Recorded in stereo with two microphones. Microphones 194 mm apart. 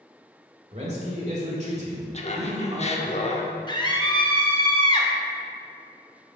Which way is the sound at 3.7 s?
25° left (ahead or behind).